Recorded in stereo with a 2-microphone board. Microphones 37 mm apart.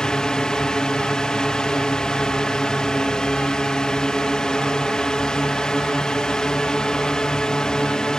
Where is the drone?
20° left (ahead or behind).